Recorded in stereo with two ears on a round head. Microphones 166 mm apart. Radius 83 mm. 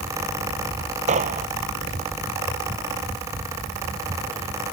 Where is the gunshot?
40° right (ahead or behind).